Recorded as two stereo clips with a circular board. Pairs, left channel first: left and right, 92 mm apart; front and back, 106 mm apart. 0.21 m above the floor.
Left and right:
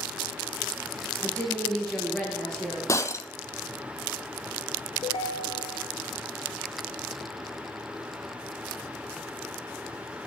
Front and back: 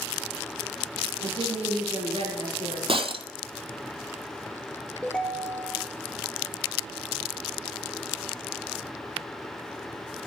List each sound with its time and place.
1.2 s a woman speaking: 170° left, 4.5 m
2.9 s breaking glass: 145° left, 0.5 m
5.0 s a ringtone: 80° left, 1.4 m